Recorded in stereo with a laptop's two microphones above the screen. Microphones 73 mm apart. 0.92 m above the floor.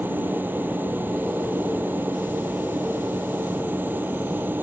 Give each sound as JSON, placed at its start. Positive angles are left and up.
{"t": 0.0, "sound": "a machine running", "side_deg": -25}